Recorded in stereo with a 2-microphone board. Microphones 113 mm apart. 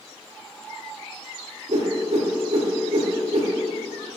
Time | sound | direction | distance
1.7 | a whoosh | 85° right | 0.6 m